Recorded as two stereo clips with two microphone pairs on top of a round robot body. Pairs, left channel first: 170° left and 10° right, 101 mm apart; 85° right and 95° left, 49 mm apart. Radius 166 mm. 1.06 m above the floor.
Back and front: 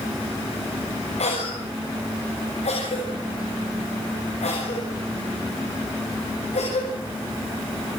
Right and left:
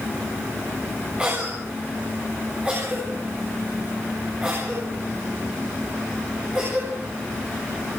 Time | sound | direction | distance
1.2 | a cough | 165° left | 7 m